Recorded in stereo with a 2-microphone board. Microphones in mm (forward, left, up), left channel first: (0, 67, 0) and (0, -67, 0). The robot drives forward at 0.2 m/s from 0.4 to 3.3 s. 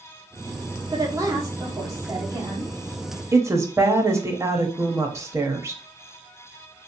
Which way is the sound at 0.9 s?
25° right (ahead or behind).